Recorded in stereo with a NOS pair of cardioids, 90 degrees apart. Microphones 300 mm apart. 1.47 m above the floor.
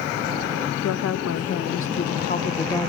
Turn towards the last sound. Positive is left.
turn(degrees=5)